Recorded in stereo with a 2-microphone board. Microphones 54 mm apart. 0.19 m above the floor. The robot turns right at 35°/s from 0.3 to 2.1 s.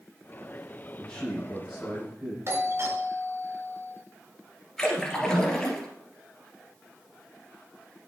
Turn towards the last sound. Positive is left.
turn(degrees=10)  # may be behind; listen again after turning